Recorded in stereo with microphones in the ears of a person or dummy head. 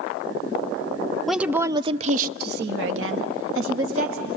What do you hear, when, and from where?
1.3 s a woman speaking: 5° right (ahead or behind), 0.6 m; by 4.4 s 70° right (ahead or behind), 1.3 m